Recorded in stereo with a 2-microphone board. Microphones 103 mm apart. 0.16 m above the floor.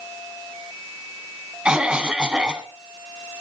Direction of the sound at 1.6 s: 10° right (ahead or behind).